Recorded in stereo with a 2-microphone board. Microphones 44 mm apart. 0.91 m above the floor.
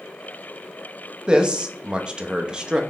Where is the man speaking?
25° right (ahead or behind), 0.6 m.